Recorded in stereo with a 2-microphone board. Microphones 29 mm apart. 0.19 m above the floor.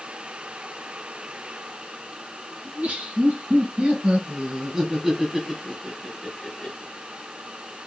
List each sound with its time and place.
2.6 s laughter: 55° right (ahead or behind), 2.5 m; by 6.9 s 30° left (ahead or behind), 2 m